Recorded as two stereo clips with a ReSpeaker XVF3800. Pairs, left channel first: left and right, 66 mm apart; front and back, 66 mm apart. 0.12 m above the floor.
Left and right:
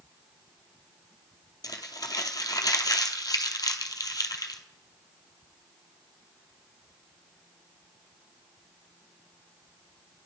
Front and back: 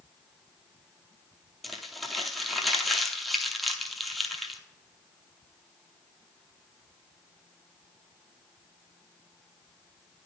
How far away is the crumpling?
About 0.6 m.